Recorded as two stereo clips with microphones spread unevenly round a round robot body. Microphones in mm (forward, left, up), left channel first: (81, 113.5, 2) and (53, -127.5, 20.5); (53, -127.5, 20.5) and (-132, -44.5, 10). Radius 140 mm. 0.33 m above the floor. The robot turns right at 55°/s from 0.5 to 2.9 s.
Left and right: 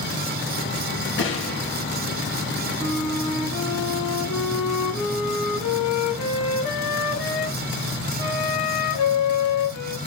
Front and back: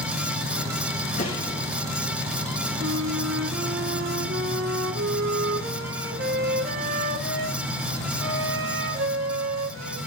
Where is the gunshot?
40° left, 5.5 m; by 1.8 s 75° left, 5.5 m.